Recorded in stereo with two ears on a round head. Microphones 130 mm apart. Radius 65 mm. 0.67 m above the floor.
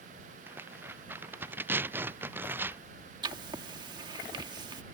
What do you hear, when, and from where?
0.5 s tearing paper: 15° right (ahead or behind)
3.2 s writing: 30° right (ahead or behind)